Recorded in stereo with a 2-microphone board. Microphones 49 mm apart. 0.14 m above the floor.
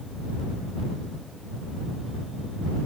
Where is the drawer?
I don't hear a drawer.